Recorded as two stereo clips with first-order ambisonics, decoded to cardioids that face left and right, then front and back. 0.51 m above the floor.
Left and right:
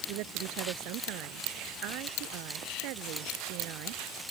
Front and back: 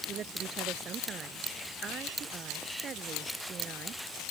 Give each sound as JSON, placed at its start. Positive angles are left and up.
{"t": 0.1, "sound": "a woman speaking", "azimuth_deg": -115}